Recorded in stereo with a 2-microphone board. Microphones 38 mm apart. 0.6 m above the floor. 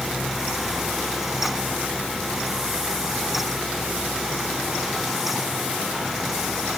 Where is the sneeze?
No sneeze in this recording.